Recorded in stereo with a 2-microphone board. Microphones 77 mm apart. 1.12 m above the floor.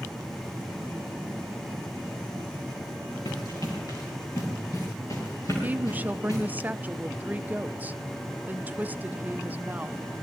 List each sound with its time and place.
3.2 s running footsteps: 50° left (ahead or behind), 5.5 m; by 6.4 s 40° left (ahead or behind), 8 m
5.6 s a woman speaking: 20° right (ahead or behind), 0.5 m